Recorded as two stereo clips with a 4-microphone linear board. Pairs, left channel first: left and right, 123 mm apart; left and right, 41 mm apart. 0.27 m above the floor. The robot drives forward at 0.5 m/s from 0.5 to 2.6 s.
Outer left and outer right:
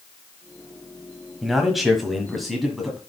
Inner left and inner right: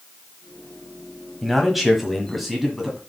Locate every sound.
1.4 s a man speaking: centre (ahead or behind), 1.2 m